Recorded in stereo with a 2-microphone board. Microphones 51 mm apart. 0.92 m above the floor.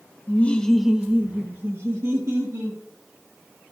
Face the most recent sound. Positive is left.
turn(degrees=-65)  # may be behind; listen again after turning